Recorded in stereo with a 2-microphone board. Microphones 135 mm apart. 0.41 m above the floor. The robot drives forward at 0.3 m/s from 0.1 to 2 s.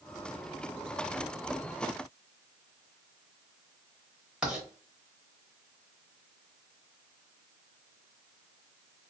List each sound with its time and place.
4.4 s writing: 5° right (ahead or behind), 0.9 m